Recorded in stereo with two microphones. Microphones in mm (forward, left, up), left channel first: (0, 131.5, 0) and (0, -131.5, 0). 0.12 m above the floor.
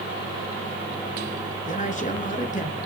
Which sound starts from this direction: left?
A man speaking, at 1.7 s.